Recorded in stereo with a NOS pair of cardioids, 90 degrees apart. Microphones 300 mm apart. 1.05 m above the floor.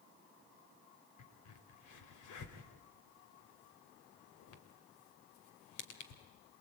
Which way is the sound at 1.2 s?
65° left.